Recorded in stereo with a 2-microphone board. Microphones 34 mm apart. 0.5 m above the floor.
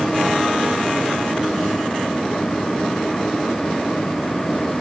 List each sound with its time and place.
Only background noise.